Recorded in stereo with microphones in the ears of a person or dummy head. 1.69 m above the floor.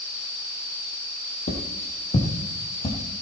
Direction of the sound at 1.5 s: 45° left (ahead or behind).